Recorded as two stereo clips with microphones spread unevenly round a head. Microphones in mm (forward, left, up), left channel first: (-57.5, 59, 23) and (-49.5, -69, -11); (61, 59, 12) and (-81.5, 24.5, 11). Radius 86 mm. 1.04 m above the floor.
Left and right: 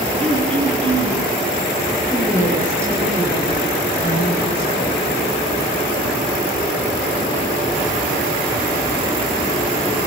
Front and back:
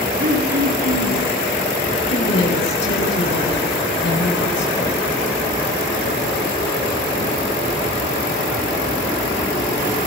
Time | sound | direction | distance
0.2 | throat clearing | 130° right | 6.5 m
2.1 | a woman speaking | 10° right | 9 m